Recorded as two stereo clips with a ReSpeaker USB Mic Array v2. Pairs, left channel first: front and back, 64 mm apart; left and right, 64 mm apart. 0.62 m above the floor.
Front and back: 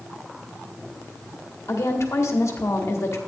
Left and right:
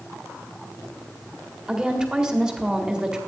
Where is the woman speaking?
15° right, 1.4 m.